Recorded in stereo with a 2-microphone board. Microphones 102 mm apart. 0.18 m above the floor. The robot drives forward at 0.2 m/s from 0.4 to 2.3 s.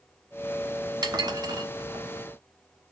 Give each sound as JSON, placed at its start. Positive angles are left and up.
{"t": 1.0, "sound": "dishes clattering", "side_deg": -45, "distance_m": 1.1}